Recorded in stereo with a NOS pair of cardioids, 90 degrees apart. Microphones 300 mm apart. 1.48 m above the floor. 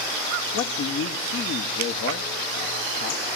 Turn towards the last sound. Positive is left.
turn(degrees=50)